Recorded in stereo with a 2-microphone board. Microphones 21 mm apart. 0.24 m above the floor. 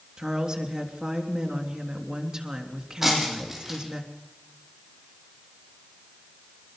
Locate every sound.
0.2 s a woman speaking: 40° right (ahead or behind), 3.5 m
3.0 s breaking glass: 15° right (ahead or behind), 6.5 m